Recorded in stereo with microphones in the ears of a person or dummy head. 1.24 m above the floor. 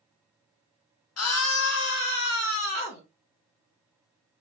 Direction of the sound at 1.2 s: 70° left (ahead or behind).